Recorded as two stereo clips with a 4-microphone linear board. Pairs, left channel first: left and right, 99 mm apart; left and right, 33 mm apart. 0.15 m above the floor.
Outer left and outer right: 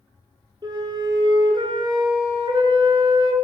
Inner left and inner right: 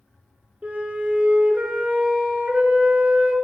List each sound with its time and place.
0.6 s a flute: 45° right (ahead or behind), 0.6 m